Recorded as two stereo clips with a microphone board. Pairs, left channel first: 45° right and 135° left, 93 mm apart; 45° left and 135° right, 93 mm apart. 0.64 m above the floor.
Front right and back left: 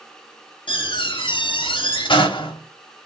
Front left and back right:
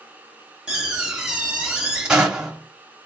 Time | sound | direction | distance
0.7 | a door slam | 55° right | 0.8 m